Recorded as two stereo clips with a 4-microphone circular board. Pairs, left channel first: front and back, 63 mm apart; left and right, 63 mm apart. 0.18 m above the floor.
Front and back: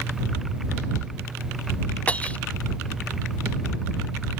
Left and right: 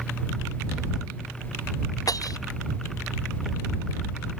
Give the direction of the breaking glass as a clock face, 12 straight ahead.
10 o'clock.